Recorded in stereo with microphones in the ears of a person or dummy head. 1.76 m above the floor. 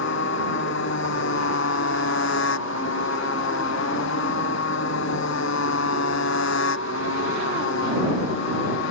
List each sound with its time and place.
0.0 s a motorcycle: 70° left (ahead or behind); by 8.9 s 75° left (ahead or behind)